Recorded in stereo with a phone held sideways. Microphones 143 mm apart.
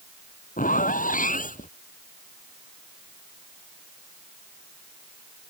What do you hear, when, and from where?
0.6 s a zipper: 70° left (ahead or behind)